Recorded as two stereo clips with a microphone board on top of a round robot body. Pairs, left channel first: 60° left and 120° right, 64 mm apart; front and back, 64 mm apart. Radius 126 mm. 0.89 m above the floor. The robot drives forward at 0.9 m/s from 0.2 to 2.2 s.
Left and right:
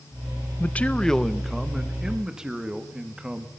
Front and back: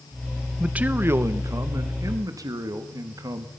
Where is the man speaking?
110° left, 0.9 m; by 3.5 s 160° left, 1.8 m.